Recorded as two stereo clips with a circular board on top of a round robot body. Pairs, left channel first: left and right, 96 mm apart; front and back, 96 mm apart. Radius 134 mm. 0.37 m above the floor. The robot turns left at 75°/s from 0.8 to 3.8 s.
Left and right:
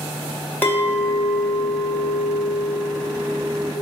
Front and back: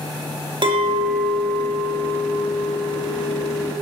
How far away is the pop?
I don't hear a pop.